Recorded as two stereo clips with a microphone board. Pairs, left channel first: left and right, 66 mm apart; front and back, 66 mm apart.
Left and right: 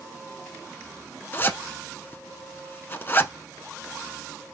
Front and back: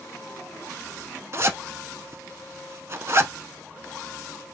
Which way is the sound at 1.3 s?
140° left.